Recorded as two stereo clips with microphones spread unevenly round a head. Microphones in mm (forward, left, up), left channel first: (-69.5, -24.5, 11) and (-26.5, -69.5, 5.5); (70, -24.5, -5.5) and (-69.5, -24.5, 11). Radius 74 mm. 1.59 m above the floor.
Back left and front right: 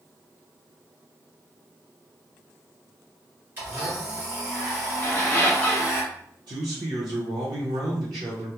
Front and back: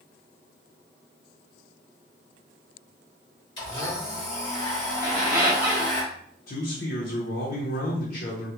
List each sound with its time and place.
3.6 s a blender: 30° right, 1.4 m
5.0 s a squeak: 135° left, 0.6 m
6.5 s a man speaking: 25° right, 0.6 m